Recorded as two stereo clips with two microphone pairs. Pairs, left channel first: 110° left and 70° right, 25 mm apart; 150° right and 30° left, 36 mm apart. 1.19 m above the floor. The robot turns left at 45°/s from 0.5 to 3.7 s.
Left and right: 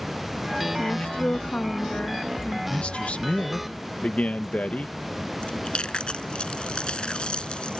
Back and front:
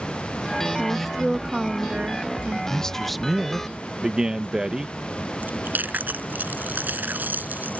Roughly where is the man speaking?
Behind left.